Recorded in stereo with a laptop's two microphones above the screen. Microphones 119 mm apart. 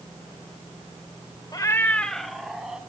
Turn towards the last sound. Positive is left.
turn(degrees=-5)  # may be behind; listen again after turning